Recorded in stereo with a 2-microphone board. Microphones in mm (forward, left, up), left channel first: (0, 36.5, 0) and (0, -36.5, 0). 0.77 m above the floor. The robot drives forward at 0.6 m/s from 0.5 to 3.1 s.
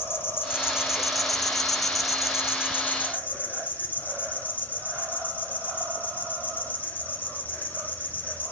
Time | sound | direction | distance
0.0 | an insect | 30° left (ahead or behind) | 0.9 m